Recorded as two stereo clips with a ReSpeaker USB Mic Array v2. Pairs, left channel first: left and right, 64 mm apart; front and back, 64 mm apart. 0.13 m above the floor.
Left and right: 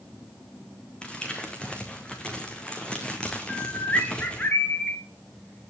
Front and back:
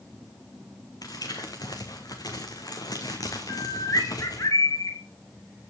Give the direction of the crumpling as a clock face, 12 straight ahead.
11 o'clock.